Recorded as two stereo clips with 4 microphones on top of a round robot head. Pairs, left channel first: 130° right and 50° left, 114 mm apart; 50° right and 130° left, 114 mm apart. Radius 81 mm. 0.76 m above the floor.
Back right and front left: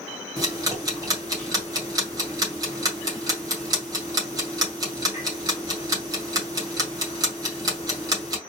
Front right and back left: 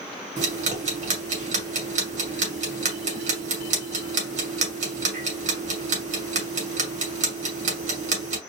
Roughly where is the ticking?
Left.